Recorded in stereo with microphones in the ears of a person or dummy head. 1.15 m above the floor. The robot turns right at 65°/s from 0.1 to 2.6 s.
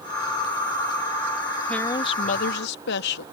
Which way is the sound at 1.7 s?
10° left.